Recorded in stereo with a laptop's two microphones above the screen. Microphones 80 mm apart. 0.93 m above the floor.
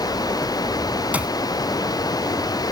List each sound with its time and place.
0.0 s running water: 50° left (ahead or behind)
1.1 s a clap: 15° right (ahead or behind)